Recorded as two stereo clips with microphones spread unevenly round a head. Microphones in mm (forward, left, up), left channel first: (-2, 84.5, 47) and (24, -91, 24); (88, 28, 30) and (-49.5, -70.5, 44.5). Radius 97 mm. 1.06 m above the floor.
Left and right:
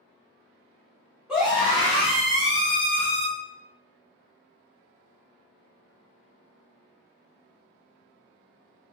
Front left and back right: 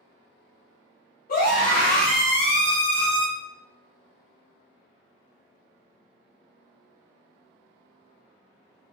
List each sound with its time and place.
1.3 s a scream: 5° left, 2 m; by 3.3 s 35° left, 1.2 m